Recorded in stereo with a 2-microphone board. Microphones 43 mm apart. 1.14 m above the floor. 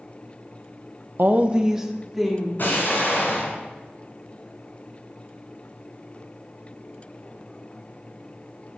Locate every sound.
1.2 s a woman speaking: 55° right (ahead or behind), 0.5 m; by 2.5 s centre (ahead or behind), 2.0 m
2.6 s an explosion: 50° left (ahead or behind), 3 m